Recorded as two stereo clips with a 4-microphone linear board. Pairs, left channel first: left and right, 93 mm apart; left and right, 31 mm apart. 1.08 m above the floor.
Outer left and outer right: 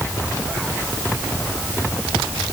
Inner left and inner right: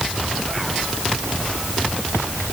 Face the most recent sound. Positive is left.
No sound to turn to.